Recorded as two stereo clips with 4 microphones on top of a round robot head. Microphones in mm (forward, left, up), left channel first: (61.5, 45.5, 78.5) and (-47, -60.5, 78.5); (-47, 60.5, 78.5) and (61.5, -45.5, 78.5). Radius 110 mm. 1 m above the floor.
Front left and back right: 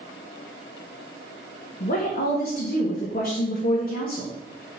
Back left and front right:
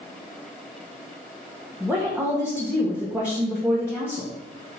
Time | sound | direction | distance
1.8 | a woman speaking | 35° left | 1.4 m